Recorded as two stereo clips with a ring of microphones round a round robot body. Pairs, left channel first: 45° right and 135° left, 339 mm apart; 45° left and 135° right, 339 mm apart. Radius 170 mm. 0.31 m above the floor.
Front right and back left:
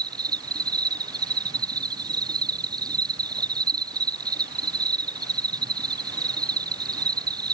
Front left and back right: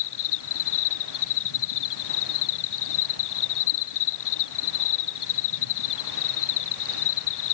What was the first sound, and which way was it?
An insect, 55° left.